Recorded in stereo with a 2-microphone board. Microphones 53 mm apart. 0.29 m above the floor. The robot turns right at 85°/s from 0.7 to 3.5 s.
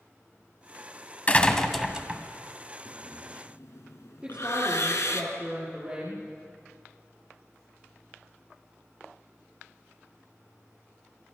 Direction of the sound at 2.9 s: 25° left (ahead or behind).